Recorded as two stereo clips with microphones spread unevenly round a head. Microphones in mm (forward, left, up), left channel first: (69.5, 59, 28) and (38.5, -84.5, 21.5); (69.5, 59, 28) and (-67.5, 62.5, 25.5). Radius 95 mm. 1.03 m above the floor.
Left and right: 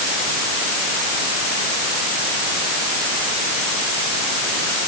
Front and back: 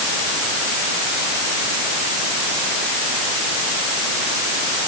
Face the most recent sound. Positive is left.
No sound to turn to.